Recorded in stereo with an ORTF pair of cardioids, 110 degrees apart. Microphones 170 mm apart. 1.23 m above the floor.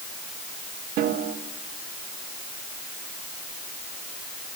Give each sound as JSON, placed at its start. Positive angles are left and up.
{"t": 1.0, "sound": "a snare drum", "azimuth_deg": -70, "distance_m": 3.5}